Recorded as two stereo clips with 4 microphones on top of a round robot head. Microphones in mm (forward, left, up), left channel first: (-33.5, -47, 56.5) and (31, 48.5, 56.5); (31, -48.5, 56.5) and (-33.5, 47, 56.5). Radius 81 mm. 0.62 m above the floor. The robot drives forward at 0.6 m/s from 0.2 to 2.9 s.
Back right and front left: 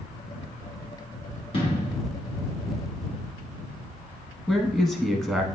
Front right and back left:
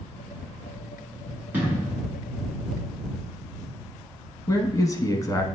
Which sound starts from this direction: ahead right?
A man speaking, at 4.5 s.